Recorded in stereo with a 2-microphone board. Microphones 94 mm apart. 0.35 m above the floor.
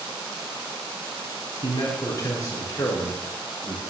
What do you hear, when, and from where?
1.6 s a man speaking: 40° left (ahead or behind), 3.5 m; by 3.8 s 30° left (ahead or behind), 4.5 m